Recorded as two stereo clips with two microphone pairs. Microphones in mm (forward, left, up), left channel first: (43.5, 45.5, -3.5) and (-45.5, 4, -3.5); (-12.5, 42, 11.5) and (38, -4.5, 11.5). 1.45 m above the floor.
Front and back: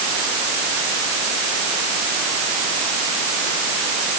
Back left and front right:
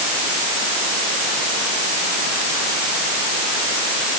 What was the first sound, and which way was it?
Only background noise.